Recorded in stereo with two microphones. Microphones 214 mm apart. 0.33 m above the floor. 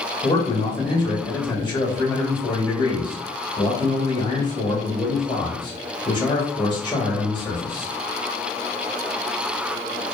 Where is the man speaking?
20° left (ahead or behind), 0.9 m.